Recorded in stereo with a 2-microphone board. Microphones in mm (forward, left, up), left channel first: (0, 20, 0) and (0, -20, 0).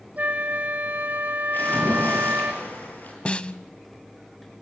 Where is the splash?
50° left (ahead or behind), 7.5 m.